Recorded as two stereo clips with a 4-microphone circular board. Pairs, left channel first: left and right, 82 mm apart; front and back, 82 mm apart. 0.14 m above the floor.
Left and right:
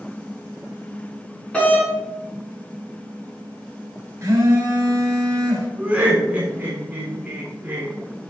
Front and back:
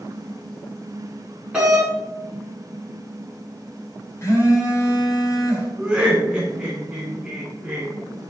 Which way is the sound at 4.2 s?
45° right.